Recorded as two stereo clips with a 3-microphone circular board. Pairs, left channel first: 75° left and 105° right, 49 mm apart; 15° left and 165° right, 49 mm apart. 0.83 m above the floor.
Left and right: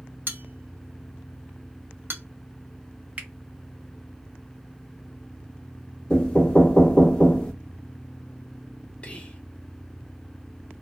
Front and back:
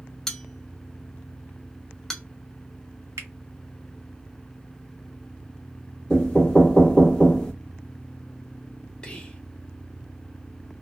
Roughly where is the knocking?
Ahead left.